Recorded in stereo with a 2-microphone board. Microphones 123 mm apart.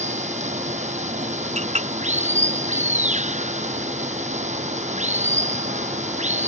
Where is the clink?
75° right (ahead or behind).